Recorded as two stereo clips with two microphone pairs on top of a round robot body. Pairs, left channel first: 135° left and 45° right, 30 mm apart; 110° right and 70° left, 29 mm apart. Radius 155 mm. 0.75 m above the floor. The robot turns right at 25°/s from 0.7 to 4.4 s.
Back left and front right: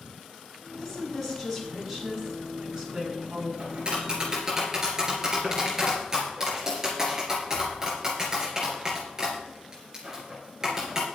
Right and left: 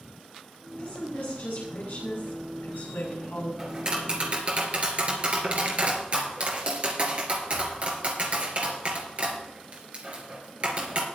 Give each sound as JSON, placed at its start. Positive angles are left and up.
{"t": 0.8, "sound": "a woman speaking", "azimuth_deg": -155, "distance_m": 6.5}
{"t": 3.6, "sound": "tapping", "azimuth_deg": 0, "distance_m": 3.5}